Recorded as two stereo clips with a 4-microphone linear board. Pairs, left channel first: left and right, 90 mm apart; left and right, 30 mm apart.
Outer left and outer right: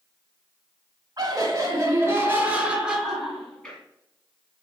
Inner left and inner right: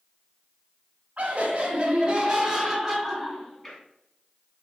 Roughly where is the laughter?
Right.